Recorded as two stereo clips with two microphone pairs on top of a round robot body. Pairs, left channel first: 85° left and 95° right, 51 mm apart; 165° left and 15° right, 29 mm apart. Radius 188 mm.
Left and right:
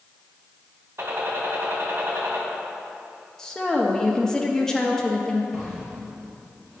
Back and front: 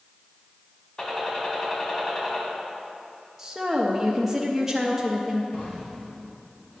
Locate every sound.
1.0 s a gunshot: 130° right, 2 m
3.4 s a woman speaking: 25° left, 1.1 m
5.5 s a drawer: 170° right, 3 m